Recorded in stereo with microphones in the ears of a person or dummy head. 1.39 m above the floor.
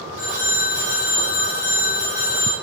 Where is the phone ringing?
5° right (ahead or behind), 3 m.